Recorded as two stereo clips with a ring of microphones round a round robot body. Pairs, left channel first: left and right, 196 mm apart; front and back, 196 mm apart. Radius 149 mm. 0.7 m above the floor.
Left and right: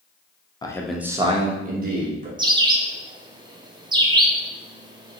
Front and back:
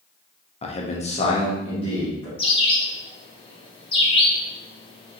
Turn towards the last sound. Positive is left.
turn(degrees=-40)